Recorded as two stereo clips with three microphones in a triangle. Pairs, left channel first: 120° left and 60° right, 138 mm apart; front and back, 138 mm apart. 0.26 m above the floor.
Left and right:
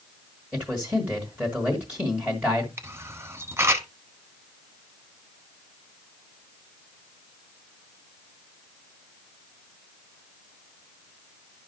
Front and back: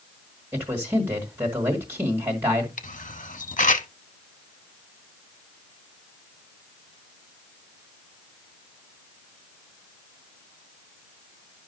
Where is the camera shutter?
10° left, 0.7 m.